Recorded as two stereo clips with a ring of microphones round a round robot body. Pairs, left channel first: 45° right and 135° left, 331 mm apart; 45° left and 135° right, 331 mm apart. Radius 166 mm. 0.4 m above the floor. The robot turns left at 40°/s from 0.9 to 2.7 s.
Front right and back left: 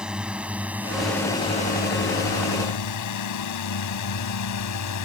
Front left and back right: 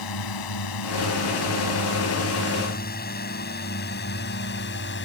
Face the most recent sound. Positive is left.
turn(degrees=-10)